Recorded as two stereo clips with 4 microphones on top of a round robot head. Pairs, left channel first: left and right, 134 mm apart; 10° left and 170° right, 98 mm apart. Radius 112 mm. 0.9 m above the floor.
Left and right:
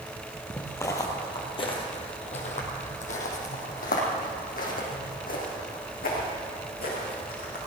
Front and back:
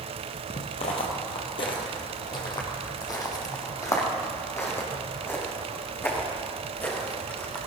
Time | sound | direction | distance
0.5 | footsteps | 15° left | 1.5 m